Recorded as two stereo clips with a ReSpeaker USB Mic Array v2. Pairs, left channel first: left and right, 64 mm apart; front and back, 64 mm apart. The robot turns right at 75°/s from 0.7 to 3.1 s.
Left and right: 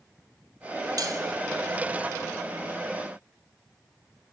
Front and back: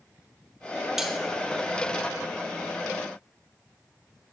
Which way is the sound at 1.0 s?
95° right.